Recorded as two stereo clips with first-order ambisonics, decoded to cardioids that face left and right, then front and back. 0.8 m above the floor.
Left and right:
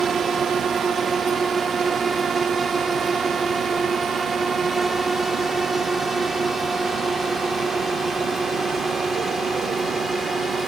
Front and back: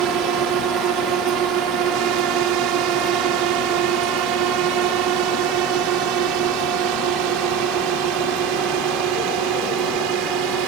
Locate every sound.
0.0 s a drone: 155° right; by 10.7 s 170° right